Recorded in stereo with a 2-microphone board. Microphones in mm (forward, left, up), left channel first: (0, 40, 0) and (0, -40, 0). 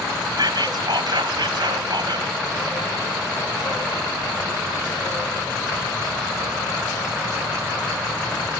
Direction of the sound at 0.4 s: 65° right (ahead or behind).